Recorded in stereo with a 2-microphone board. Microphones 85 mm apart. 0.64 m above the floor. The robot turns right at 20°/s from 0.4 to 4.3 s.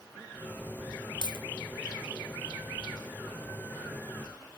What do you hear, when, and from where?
1.2 s a dropped coin: 60° left (ahead or behind), 0.9 m; by 1.5 s 65° left (ahead or behind), 0.9 m